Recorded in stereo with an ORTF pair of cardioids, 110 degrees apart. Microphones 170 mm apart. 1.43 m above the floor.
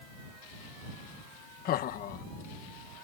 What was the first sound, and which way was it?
Laughter, 60° left.